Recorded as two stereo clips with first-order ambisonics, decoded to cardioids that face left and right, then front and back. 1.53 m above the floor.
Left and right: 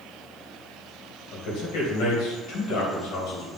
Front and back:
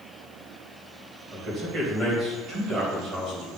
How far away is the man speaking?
About 2 m.